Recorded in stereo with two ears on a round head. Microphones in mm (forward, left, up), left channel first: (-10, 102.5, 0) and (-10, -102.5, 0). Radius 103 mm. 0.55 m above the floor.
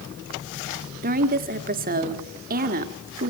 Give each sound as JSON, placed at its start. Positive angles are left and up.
{"t": 1.0, "sound": "a woman speaking", "side_deg": -40, "distance_m": 1.4}